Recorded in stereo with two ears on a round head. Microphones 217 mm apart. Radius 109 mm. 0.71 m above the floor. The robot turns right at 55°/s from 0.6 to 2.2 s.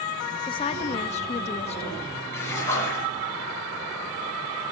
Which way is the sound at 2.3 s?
10° left (ahead or behind).